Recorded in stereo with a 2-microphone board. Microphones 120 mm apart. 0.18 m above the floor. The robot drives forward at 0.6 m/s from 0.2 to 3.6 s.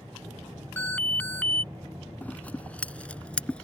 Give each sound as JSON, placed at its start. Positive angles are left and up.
{"t": 0.8, "sound": "an alarm", "side_deg": 15}
{"t": 2.2, "sound": "scissors", "side_deg": 15}